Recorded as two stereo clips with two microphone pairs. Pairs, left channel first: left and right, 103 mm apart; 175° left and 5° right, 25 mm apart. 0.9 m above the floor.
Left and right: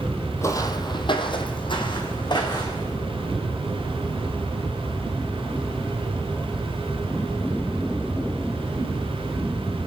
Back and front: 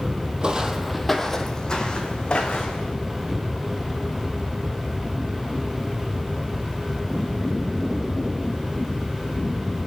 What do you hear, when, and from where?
0.4 s footsteps: 35° left, 1.3 m; by 2.9 s 135° left, 3.5 m